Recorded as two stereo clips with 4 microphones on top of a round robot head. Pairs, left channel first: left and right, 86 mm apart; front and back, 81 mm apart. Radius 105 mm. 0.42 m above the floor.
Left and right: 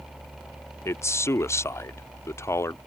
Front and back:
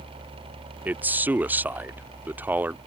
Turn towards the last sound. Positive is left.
turn(degrees=125)